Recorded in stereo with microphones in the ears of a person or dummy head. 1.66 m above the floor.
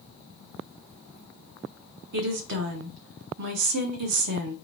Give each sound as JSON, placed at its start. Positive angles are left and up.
{"t": 2.1, "sound": "a woman speaking", "side_deg": -65, "distance_m": 1.1}